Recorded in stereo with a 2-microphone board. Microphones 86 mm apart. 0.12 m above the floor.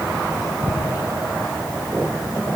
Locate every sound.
Only background noise.